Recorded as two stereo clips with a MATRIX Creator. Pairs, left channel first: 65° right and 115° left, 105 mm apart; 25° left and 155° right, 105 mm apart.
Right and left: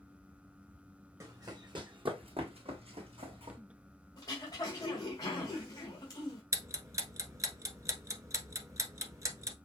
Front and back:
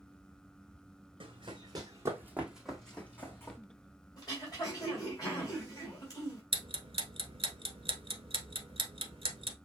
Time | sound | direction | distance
1.2 | running footsteps | 170° left | 1.6 m
4.2 | throat clearing | 25° right | 2.5 m
6.5 | ticking | 170° left | 0.9 m